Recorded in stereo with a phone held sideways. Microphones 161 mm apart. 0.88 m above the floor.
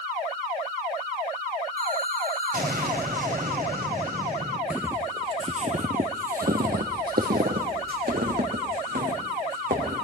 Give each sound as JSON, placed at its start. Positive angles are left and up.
{"t": 1.8, "sound": "an explosion", "side_deg": -65, "distance_m": 2.5}
{"t": 4.7, "sound": "footsteps", "side_deg": -5, "distance_m": 1.1}